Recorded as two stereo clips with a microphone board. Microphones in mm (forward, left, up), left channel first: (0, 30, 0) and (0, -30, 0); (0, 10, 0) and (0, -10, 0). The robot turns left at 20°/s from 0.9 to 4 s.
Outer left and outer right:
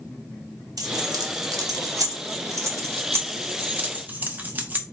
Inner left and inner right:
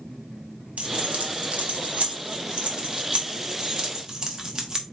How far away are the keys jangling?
About 0.9 m.